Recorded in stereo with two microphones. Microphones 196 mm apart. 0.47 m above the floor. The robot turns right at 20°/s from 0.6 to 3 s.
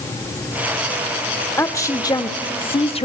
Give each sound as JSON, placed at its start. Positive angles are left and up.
{"t": 1.6, "sound": "a woman speaking", "side_deg": 15, "distance_m": 0.9}